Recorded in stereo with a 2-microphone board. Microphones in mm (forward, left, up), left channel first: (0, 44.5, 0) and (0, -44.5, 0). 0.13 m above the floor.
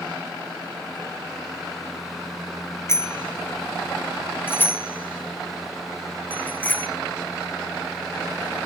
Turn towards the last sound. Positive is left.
turn(degrees=15)  # may be behind; listen again after turning